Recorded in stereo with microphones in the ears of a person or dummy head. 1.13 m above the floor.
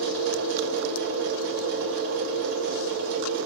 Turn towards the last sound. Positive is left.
turn(degrees=-75)  # may be behind; listen again after turning